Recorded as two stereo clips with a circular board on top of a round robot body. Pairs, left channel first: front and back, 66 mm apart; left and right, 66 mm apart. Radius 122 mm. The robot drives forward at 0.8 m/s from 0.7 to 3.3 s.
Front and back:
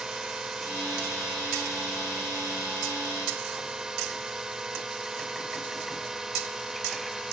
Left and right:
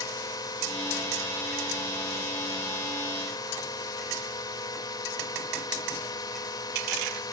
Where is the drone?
100° left; by 7.3 s 95° left.